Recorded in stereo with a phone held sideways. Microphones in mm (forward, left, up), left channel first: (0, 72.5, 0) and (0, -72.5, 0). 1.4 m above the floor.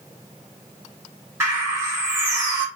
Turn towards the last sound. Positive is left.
turn(degrees=-20)  # may be behind; listen again after turning